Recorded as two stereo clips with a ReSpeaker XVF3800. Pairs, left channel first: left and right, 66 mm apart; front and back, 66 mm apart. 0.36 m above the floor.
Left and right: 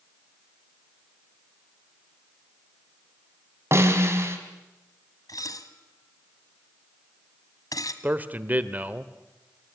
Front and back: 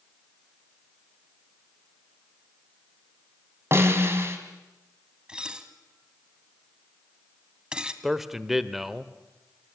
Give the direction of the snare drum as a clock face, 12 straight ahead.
4 o'clock.